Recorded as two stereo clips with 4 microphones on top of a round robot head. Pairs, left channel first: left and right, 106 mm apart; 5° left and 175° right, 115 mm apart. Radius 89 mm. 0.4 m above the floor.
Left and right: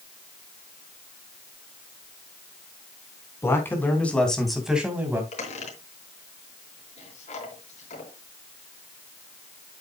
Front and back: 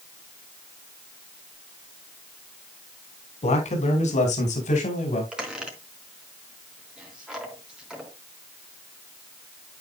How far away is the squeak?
About 4 m.